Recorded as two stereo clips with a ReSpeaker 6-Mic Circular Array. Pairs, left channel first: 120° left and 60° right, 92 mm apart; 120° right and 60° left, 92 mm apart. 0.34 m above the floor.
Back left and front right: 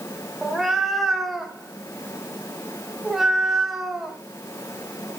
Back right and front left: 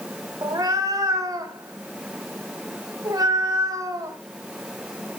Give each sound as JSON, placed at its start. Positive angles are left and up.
{"t": 0.4, "sound": "a cat meowing", "azimuth_deg": 30, "distance_m": 0.8}